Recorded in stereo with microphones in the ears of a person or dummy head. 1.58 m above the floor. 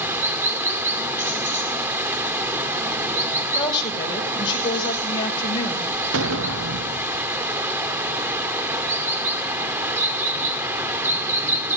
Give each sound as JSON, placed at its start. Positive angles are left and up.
{"t": 0.0, "sound": "running water", "side_deg": -15, "distance_m": 1.7}
{"t": 3.5, "sound": "a woman speaking", "side_deg": 25, "distance_m": 5.5}
{"t": 6.1, "sound": "an explosion", "side_deg": -75, "distance_m": 0.6}